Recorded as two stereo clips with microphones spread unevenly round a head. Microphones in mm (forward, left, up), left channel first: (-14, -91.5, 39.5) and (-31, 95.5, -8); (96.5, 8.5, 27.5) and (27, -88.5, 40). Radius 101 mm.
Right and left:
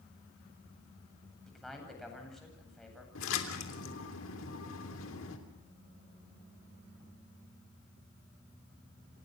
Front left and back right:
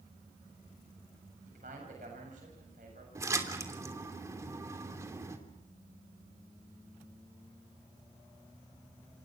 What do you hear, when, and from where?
1.5 s a man speaking: 175° right, 8 m
3.1 s a splash: 60° right, 3 m